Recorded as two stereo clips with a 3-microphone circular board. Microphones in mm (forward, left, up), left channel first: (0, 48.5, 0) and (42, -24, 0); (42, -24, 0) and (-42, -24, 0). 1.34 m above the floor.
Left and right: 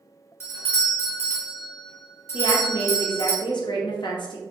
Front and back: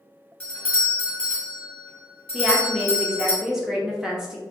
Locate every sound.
0.4 s a doorbell: 70° left, 1.5 m
2.3 s a woman speaking: 100° left, 0.9 m